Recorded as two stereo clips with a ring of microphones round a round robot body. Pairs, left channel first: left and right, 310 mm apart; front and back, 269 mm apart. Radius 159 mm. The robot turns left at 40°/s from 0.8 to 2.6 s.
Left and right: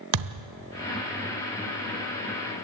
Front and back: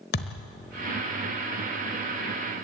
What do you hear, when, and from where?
0.1 s a thud: 60° right, 1.1 m